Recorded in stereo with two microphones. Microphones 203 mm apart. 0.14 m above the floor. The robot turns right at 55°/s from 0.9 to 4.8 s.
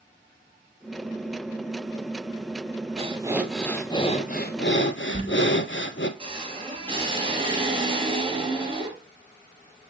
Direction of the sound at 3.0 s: 30° right.